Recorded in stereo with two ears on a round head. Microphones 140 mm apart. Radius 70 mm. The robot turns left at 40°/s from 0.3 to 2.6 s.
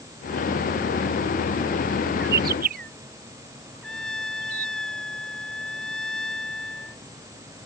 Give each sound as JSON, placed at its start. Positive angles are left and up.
{"t": 2.2, "sound": "a bird", "side_deg": -80}
{"t": 3.8, "sound": "a trumpet", "side_deg": 5}